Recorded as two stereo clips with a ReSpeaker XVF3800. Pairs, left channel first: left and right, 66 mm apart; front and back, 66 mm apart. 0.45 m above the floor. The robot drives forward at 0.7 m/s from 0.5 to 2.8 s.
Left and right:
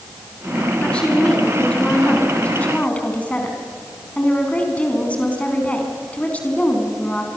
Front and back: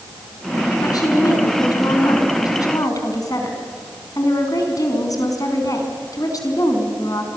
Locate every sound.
0.8 s a woman speaking: 15° left, 6 m; by 7.3 s 20° left, 4.5 m